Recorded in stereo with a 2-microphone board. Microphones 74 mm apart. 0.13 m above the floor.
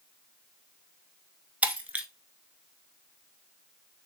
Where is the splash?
No splash in this recording.